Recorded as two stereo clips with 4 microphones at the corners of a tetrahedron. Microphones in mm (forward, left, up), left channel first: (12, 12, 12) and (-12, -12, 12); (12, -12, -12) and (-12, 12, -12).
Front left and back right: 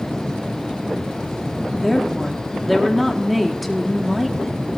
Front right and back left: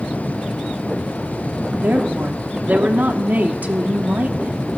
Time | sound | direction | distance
1.8 | a woman speaking | 135° left | 1.3 m